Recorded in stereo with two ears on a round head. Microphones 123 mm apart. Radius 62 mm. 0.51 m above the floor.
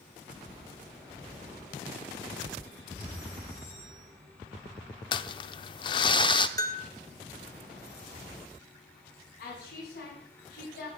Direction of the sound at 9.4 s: 70° left (ahead or behind).